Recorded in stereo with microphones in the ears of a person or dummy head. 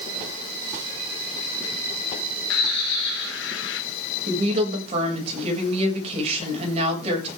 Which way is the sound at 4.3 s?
40° right (ahead or behind).